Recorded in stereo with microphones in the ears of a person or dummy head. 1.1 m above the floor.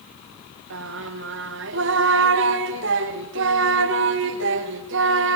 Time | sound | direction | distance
0.7 | singing | 65° right (ahead or behind) | 1.1 m